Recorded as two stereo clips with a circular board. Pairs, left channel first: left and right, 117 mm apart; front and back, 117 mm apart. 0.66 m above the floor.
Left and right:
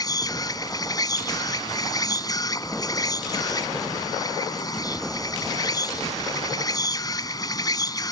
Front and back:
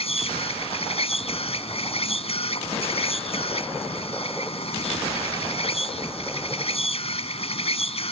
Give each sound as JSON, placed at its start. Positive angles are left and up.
{"t": 0.0, "sound": "an insect", "azimuth_deg": 30}